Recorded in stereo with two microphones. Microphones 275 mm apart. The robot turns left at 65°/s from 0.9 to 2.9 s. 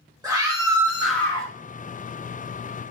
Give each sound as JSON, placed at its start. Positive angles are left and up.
{"t": 0.2, "sound": "a scream", "azimuth_deg": -165, "distance_m": 1.7}